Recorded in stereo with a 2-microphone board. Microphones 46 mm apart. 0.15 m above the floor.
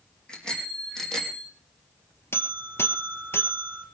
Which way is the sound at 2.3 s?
70° left (ahead or behind).